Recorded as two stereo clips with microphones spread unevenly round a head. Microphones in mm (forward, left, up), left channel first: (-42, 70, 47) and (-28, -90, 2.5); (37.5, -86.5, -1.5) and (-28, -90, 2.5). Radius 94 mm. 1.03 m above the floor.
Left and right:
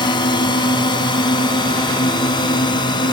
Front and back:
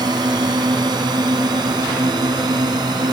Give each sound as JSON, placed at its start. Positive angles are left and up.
{"t": 0.0, "sound": "a drone", "azimuth_deg": 155}